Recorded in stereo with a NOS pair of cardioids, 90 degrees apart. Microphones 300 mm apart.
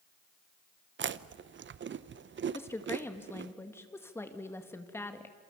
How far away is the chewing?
About 0.7 m.